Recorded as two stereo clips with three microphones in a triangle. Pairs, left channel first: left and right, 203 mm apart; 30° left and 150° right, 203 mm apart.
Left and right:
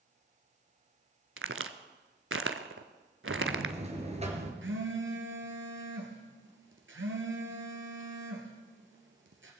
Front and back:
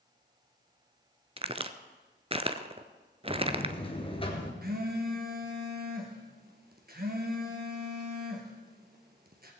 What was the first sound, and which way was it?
A crack, 85° right.